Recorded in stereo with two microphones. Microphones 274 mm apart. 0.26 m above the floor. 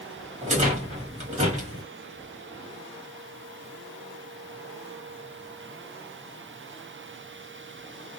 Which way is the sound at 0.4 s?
25° right (ahead or behind).